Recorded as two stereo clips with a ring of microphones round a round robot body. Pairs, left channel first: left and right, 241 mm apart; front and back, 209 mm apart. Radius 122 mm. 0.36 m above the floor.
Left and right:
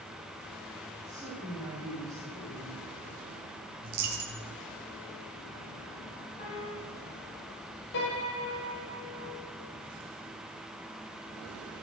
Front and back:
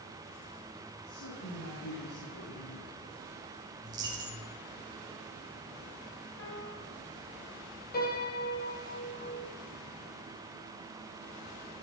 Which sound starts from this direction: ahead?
A woman speaking, at 1.1 s.